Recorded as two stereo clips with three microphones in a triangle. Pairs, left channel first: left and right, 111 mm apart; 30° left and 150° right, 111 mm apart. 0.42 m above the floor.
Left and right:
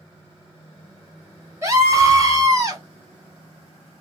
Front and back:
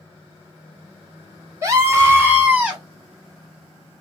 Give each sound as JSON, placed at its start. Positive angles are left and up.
{"t": 1.6, "sound": "a scream", "azimuth_deg": -120, "distance_m": 1.4}